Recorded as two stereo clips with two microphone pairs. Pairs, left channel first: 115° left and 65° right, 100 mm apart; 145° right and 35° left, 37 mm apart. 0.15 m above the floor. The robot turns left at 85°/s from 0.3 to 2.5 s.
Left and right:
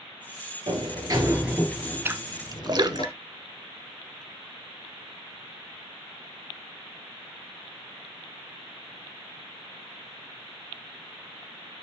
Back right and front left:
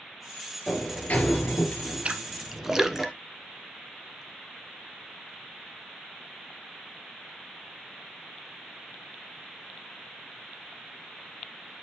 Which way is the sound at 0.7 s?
75° right.